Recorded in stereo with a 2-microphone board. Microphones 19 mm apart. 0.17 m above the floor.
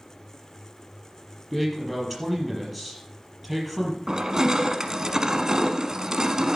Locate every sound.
1.5 s a man speaking: 5° left (ahead or behind), 5 m
4.1 s crushing: 35° right (ahead or behind), 0.9 m